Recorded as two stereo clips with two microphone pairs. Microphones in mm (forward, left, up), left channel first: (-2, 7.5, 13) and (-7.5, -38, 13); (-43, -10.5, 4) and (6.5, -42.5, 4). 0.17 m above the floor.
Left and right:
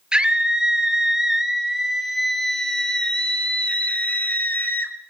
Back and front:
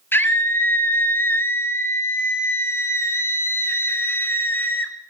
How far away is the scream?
About 3 m.